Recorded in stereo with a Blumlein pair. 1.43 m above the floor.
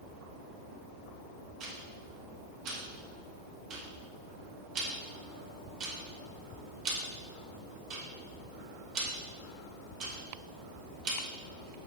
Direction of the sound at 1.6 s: 35° right.